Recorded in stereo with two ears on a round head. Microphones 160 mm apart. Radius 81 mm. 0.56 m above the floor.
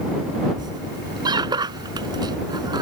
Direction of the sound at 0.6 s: 25° right (ahead or behind).